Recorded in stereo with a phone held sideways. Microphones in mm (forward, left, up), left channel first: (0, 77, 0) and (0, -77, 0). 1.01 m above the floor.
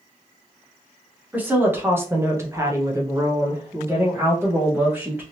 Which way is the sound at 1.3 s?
10° right (ahead or behind).